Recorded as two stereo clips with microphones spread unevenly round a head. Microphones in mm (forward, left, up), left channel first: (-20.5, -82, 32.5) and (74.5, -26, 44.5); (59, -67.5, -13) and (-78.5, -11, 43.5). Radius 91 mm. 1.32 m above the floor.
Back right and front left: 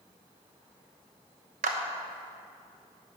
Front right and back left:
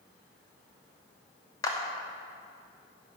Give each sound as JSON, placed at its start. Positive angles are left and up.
{"t": 1.6, "sound": "a clap", "azimuth_deg": 50, "distance_m": 1.0}